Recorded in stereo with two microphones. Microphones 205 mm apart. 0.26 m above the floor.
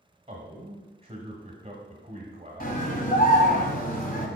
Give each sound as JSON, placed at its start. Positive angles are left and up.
{"t": 0.3, "sound": "a man speaking", "side_deg": -30, "distance_m": 1.1}
{"t": 2.6, "sound": "a scream", "side_deg": 45, "distance_m": 1.4}